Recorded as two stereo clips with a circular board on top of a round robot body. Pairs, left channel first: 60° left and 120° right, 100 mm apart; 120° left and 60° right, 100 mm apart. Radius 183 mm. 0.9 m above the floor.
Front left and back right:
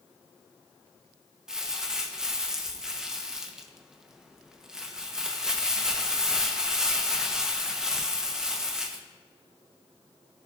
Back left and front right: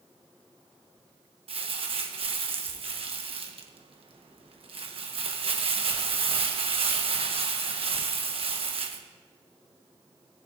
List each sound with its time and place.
1.5 s crumpling: 35° right, 1.2 m